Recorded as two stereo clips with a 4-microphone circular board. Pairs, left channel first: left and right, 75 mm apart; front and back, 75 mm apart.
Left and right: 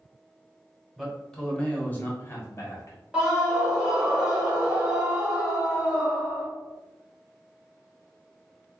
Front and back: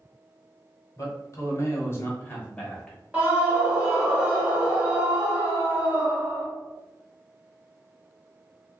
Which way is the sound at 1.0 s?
Straight ahead.